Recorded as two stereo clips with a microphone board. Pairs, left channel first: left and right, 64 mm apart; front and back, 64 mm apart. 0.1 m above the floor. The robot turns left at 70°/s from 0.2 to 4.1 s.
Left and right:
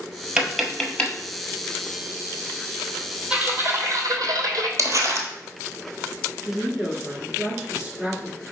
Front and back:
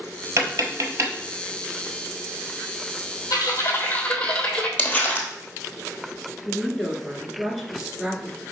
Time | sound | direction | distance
0.4 | tapping | 165° right | 1.1 m
3.3 | typing on a keyboard | 15° right | 0.9 m
4.8 | crumpling | 70° right | 1.0 m
6.5 | a woman speaking | 110° right | 1.1 m